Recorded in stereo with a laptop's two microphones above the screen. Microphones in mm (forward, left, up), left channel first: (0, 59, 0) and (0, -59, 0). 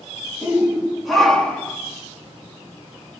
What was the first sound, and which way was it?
A shout, 10° right (ahead or behind).